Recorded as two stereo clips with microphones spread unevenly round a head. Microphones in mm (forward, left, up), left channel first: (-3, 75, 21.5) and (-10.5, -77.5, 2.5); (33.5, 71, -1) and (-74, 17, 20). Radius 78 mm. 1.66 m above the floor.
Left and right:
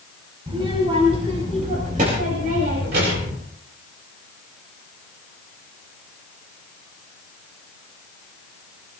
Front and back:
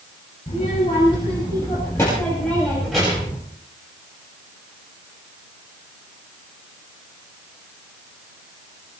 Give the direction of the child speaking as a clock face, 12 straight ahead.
1 o'clock.